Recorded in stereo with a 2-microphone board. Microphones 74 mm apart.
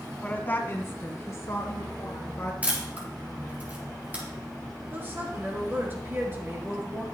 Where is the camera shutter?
20° right (ahead or behind), 3.5 m.